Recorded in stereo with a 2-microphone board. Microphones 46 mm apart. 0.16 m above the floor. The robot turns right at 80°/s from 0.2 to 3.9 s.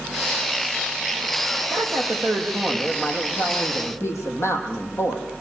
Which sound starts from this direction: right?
A woman speaking, at 1.7 s.